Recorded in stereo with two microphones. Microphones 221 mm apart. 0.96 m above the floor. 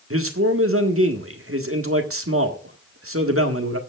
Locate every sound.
0.1 s a man speaking: 70° right (ahead or behind), 1.7 m